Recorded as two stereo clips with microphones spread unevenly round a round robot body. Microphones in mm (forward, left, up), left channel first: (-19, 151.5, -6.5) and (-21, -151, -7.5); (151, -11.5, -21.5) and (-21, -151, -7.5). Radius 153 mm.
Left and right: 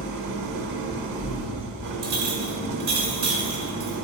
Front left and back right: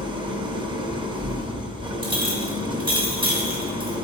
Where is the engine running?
70° right, 0.9 m.